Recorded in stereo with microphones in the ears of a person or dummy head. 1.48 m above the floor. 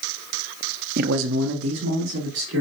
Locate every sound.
1.0 s a man speaking: 45° right (ahead or behind), 0.7 m; by 2.6 s 80° right, 3 m